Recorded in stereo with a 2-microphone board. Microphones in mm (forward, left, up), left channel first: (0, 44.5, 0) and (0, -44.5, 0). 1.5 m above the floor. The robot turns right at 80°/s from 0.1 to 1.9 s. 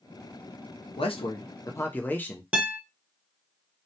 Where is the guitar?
15° right (ahead or behind), 1.0 m.